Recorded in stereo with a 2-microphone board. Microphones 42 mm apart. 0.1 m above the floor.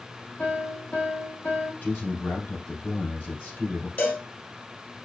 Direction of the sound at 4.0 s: 35° left (ahead or behind).